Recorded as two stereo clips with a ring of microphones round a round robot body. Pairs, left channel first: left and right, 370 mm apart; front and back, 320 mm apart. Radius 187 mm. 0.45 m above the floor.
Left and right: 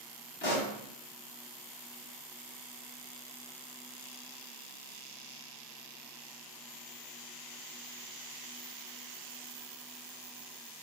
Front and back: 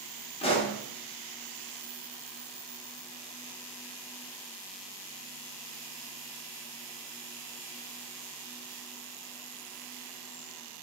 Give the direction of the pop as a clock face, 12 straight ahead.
10 o'clock.